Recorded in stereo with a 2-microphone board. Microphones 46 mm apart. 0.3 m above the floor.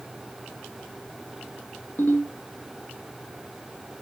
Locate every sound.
2.0 s a ringtone: 55° left (ahead or behind), 2 m